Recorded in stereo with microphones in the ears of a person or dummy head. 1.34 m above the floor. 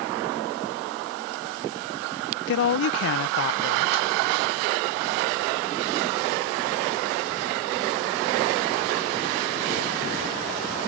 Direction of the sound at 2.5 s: 60° left (ahead or behind).